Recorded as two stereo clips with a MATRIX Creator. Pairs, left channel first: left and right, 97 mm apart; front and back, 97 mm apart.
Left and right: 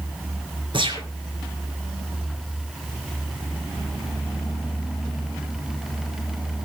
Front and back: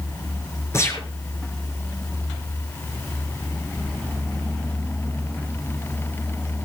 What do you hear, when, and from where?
0.7 s a gunshot: 60° right, 4.5 m